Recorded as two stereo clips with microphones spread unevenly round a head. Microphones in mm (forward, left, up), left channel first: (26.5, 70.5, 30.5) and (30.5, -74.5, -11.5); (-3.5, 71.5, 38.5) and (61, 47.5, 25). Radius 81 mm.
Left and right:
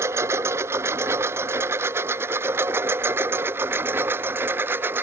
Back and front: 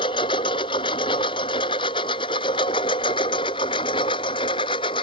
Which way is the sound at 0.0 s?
165° right.